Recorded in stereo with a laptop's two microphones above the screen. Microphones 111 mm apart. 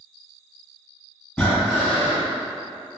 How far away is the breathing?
About 1.6 m.